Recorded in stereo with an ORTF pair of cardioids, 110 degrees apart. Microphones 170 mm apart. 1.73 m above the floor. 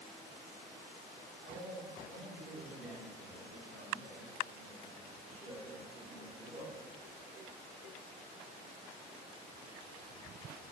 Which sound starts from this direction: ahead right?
A man speaking, at 1.4 s.